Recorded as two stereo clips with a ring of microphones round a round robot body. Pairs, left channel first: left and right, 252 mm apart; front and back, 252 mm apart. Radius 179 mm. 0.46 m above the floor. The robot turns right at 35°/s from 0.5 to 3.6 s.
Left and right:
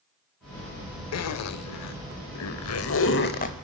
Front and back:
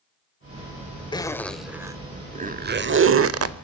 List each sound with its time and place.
1.1 s a zipper: 75° left, 1.0 m; by 3.5 s 160° left, 1.0 m